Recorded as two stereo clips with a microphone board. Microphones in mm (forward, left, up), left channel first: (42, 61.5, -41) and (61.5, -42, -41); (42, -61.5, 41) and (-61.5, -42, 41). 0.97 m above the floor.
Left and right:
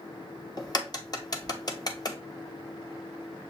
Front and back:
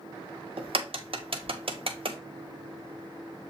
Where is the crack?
145° left, 0.7 m.